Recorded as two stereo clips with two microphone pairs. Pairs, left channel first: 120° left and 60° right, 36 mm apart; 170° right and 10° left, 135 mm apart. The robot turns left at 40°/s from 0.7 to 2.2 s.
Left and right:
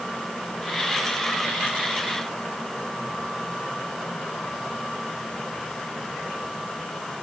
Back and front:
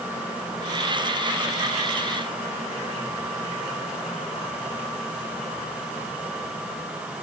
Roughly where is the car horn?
I don't hear a car horn.